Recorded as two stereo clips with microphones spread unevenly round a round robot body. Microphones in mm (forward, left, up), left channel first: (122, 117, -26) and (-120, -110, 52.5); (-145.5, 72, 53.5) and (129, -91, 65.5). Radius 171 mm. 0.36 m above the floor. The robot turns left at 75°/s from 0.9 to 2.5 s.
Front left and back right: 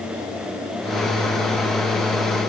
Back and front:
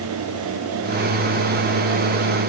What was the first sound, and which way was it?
Only background noise.